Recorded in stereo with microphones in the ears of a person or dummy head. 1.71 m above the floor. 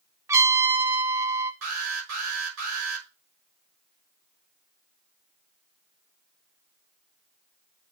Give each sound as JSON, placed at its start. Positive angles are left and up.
{"t": 0.3, "sound": "a trumpet", "side_deg": -15, "distance_m": 0.6}
{"t": 1.6, "sound": "an alarm", "side_deg": -75, "distance_m": 5.5}